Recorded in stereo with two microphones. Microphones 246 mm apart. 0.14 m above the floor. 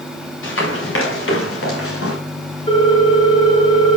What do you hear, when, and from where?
0.4 s running footsteps: 55° left (ahead or behind), 6.5 m; by 2.2 s 65° left (ahead or behind), 5 m
2.7 s a ringtone: 25° left (ahead or behind), 6 m